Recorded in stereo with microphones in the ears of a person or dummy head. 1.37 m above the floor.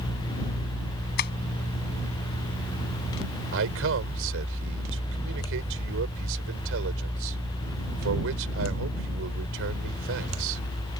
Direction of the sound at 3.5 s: 80° right.